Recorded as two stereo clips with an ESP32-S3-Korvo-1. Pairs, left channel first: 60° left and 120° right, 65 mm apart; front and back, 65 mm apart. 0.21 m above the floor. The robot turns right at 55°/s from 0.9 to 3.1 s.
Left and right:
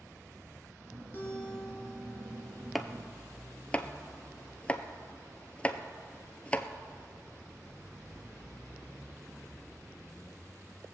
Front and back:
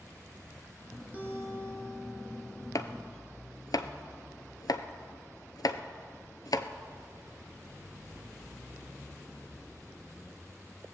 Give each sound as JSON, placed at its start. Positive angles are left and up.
{"t": 1.1, "sound": "a guitar", "azimuth_deg": 115, "distance_m": 3.0}
{"t": 2.8, "sound": "chopping", "azimuth_deg": -30, "distance_m": 0.6}